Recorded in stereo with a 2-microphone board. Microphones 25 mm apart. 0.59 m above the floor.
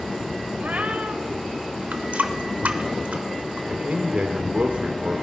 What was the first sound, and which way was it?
A cat meowing, 80° right.